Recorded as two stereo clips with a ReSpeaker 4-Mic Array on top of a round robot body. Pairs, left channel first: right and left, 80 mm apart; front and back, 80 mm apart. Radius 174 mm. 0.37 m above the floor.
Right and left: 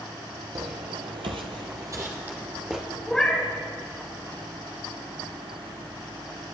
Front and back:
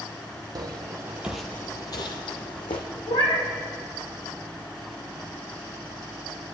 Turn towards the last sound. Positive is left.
turn(degrees=-5)